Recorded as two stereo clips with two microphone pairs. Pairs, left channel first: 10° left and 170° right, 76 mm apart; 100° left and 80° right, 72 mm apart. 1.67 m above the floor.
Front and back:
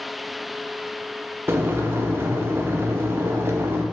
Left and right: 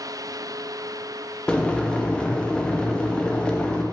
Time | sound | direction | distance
1.5 | boiling | 165° left | 0.6 m